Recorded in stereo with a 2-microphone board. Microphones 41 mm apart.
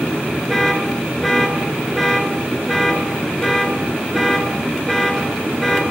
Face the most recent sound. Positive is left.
turn(degrees=5)  # may be behind; listen again after turning